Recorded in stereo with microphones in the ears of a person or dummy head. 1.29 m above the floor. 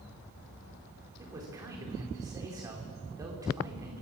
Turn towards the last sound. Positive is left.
turn(degrees=-20)  # may be behind; listen again after turning